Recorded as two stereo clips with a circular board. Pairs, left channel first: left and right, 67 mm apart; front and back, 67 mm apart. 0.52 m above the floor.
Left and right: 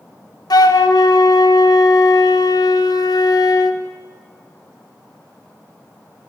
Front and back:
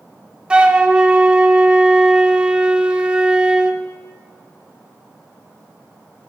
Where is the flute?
105° left, 0.7 m.